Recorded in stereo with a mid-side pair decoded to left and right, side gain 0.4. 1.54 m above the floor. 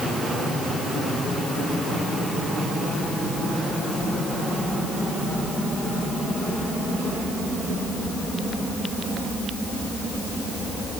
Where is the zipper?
I don't hear a zipper.